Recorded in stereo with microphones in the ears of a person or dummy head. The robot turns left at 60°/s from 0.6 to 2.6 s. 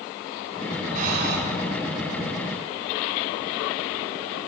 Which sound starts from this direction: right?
Breathing, at 0.9 s.